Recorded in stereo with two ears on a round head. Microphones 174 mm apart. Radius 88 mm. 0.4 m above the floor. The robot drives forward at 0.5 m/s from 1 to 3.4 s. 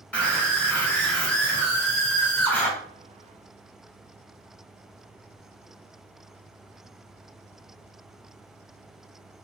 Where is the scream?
5° left (ahead or behind), 1.8 m; by 2.7 s 10° left (ahead or behind), 1.2 m.